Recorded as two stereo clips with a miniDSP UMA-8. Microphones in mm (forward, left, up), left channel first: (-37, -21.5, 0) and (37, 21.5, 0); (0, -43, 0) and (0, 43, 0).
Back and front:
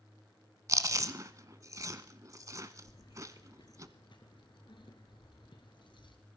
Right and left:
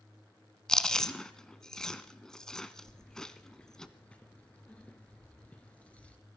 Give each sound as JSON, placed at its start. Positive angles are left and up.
{"t": 0.7, "sound": "chewing", "azimuth_deg": -10, "distance_m": 0.8}
{"t": 2.9, "sound": "keys jangling", "azimuth_deg": -165, "distance_m": 1.9}